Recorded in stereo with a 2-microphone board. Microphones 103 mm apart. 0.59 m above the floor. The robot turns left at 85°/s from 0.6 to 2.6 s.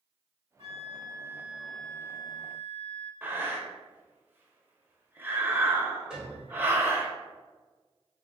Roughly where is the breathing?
Right.